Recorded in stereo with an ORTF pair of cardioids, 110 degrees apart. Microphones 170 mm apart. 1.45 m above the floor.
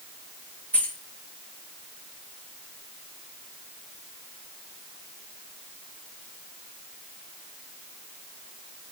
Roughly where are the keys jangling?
Ahead.